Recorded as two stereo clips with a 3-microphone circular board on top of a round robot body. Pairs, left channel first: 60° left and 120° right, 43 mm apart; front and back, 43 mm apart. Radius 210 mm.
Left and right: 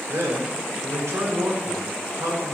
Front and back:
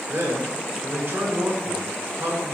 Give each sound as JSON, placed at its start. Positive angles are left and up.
{"t": 0.1, "sound": "a man speaking", "azimuth_deg": -135, "distance_m": 4.0}